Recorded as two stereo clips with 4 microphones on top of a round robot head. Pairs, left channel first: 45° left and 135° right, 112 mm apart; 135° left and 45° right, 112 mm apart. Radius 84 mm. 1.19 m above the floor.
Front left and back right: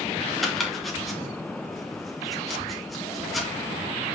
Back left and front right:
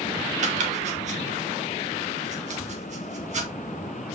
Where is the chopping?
45° right, 2.5 m.